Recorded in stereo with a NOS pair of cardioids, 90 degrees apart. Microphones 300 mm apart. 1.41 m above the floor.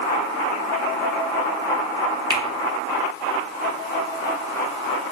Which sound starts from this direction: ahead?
A finger snap, at 2.3 s.